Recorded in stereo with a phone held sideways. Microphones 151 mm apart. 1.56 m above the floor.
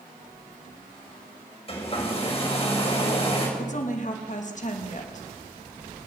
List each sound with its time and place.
1.7 s a hair dryer: 35° left (ahead or behind), 5.5 m
3.6 s a woman speaking: 50° left (ahead or behind), 2.5 m